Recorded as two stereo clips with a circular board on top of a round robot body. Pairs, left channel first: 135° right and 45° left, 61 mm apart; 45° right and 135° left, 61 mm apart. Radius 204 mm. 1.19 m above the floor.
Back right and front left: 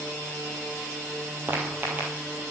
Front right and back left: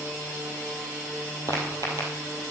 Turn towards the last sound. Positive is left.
turn(degrees=110)